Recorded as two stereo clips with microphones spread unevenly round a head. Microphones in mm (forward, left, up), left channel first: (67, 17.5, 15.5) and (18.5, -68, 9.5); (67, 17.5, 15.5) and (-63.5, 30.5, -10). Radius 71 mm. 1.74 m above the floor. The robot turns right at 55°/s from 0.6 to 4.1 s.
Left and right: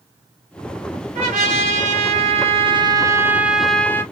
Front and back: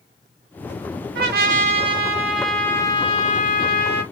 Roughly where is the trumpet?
Behind.